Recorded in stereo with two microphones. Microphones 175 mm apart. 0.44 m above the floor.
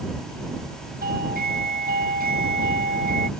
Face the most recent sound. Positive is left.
turn(degrees=-60)  # may be behind; listen again after turning